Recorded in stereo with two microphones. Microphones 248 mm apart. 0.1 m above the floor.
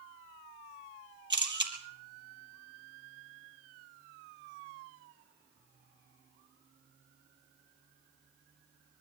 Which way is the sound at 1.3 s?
45° right (ahead or behind).